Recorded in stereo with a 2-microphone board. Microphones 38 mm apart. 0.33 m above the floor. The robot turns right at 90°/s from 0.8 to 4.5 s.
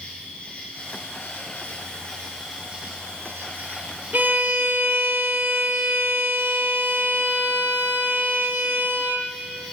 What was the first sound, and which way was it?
An insect, 35° left.